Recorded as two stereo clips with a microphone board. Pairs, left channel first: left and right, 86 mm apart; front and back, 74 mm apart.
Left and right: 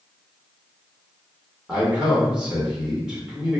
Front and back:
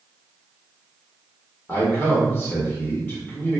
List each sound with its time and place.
1.7 s a man speaking: 20° right, 1.2 m